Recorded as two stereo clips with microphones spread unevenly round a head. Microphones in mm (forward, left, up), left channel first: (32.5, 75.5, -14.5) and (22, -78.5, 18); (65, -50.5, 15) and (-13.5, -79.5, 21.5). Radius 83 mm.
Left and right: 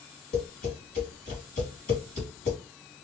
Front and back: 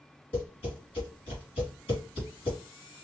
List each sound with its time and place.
0.3 s tapping: 50° left, 3 m